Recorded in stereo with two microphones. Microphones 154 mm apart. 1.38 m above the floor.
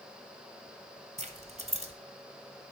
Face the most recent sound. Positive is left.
turn(degrees=-45)  # may be behind; listen again after turning